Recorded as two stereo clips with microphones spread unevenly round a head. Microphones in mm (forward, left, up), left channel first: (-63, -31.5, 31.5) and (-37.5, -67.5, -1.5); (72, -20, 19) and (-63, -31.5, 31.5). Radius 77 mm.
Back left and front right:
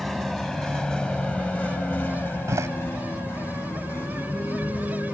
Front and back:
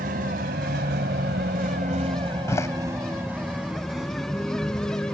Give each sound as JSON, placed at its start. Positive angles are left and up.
{"t": 0.0, "sound": "a vehicle", "azimuth_deg": -165}
{"t": 2.5, "sound": "a door slam", "azimuth_deg": -65}